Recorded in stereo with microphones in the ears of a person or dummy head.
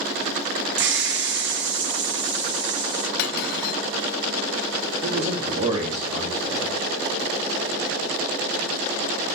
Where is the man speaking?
30° right (ahead or behind), 3 m.